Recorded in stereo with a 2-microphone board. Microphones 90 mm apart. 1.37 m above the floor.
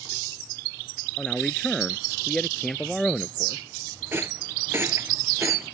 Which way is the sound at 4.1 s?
25° right (ahead or behind).